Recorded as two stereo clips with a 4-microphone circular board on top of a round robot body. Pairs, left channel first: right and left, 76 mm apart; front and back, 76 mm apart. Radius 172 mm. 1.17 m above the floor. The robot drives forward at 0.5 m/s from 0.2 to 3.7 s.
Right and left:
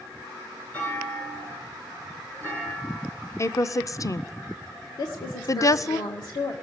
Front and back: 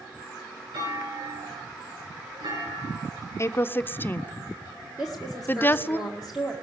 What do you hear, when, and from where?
0.7 s a clunk: 160° right, 10 m
3.4 s a woman speaking: 45° right, 0.8 m; by 6.0 s 60° right, 0.7 m
5.0 s a woman speaking: 95° right, 1.6 m